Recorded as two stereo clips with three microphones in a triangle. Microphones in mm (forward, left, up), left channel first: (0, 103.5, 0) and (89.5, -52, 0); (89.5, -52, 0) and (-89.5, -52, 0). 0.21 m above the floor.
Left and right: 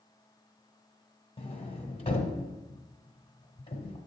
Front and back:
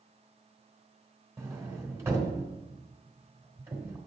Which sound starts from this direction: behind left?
A sliding door, at 1.4 s.